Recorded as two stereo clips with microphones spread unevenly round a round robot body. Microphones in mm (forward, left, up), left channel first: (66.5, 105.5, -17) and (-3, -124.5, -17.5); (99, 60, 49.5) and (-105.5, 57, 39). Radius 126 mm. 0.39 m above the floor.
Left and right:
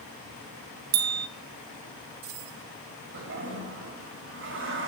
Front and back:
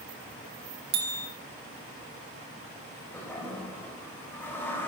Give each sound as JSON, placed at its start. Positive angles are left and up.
{"t": 0.9, "sound": "a bell", "azimuth_deg": -135, "distance_m": 1.3}
{"t": 3.1, "sound": "a toilet flushing", "azimuth_deg": -80, "distance_m": 2.0}